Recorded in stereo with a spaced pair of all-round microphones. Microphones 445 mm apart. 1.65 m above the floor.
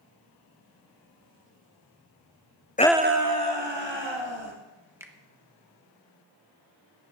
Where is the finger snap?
5° right (ahead or behind), 1.1 m.